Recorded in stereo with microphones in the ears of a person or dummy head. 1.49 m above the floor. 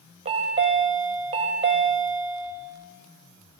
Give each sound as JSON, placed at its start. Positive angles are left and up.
{"t": 0.2, "sound": "a chime", "side_deg": -35, "distance_m": 1.0}